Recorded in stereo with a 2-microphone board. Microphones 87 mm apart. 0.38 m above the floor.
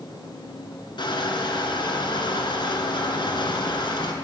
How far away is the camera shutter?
I don't hear a camera shutter.